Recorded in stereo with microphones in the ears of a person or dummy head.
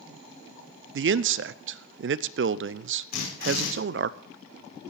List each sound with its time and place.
0.9 s a man speaking: 60° right (ahead or behind), 0.5 m
3.1 s a drill: 50° left (ahead or behind), 5.5 m